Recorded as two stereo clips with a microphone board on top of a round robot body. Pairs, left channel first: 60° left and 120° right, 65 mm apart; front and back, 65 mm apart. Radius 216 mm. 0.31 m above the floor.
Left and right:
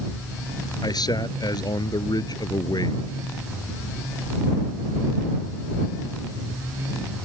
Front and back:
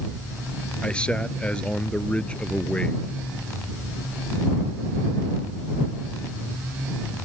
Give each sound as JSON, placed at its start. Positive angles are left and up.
{"t": 0.8, "sound": "a man speaking", "azimuth_deg": 75}